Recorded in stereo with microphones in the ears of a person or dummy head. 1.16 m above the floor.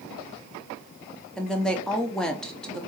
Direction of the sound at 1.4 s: 5° left (ahead or behind).